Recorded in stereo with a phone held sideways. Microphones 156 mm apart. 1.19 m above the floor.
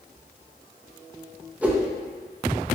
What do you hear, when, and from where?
1.6 s a whoosh: 10° right (ahead or behind), 0.6 m